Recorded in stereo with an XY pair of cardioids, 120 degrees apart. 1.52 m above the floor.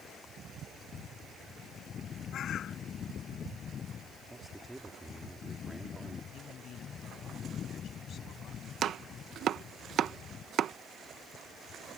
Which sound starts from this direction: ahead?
A man speaking, at 4.3 s.